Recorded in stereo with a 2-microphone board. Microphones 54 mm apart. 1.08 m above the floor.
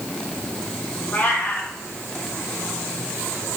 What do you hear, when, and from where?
1.1 s a cat meowing: 35° left (ahead or behind), 3 m